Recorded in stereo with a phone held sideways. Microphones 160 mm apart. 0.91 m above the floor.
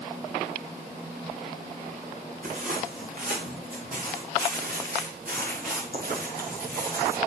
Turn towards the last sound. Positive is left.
turn(degrees=-75)  # may be behind; listen again after turning